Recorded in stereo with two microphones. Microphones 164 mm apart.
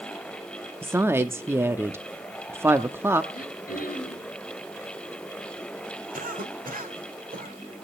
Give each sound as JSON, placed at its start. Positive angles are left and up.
{"t": 0.8, "sound": "a woman speaking", "side_deg": -15, "distance_m": 0.7}
{"t": 3.3, "sound": "throat clearing", "side_deg": 60, "distance_m": 5.0}
{"t": 6.1, "sound": "a cough", "side_deg": -65, "distance_m": 2.5}